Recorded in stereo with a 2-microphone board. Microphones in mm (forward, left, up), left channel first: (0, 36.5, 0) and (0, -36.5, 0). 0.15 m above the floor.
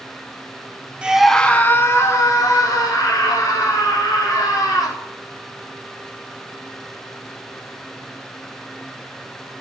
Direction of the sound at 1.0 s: 15° right (ahead or behind).